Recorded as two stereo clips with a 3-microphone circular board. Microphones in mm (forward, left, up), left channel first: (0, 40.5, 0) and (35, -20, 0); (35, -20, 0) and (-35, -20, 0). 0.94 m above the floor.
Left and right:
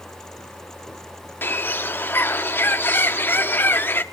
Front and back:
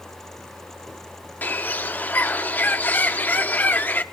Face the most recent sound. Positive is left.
turn(degrees=60)